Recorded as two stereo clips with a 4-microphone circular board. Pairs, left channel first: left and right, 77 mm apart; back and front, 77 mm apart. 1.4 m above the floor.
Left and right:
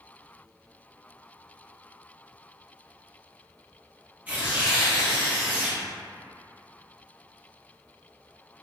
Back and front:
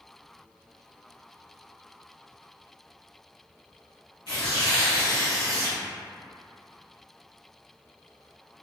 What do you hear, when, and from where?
4.3 s tearing paper: 160° right, 1.3 m